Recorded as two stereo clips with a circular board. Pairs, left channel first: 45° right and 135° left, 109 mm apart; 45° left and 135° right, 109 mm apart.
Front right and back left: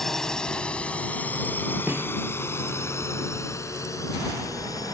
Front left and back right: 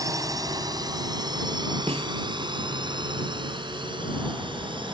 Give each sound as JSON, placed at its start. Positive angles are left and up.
{"t": 0.0, "sound": "a drone", "azimuth_deg": -130}
{"t": 1.9, "sound": "a snare drum", "azimuth_deg": -155}